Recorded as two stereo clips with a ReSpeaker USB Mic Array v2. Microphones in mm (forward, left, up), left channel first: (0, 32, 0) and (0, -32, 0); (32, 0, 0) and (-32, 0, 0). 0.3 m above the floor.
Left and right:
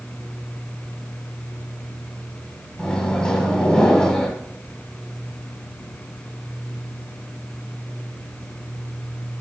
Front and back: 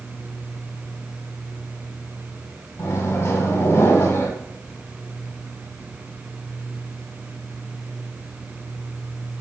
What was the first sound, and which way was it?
A microwave, 20° left.